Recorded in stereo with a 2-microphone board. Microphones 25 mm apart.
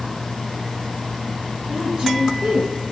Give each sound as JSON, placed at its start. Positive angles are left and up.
{"t": 1.7, "sound": "a woman speaking", "side_deg": -55, "distance_m": 5.5}